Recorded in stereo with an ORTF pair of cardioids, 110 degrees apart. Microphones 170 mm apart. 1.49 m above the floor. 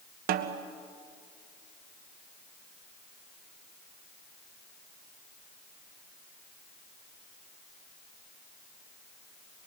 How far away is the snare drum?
About 1.2 m.